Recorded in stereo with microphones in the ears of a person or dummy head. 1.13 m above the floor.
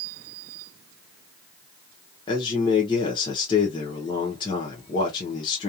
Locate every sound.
2.3 s a man speaking: 20° left (ahead or behind), 0.7 m